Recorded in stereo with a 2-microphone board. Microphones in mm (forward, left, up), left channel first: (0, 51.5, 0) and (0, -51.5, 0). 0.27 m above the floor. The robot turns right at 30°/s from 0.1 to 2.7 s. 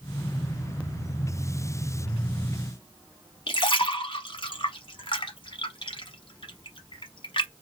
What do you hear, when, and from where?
3.5 s a splash: 55° left (ahead or behind), 1.0 m